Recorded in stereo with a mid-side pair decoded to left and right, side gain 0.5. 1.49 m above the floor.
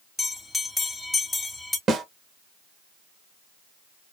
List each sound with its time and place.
0.2 s a bell: 15° left, 1.1 m
1.9 s a snare drum: 50° right, 0.9 m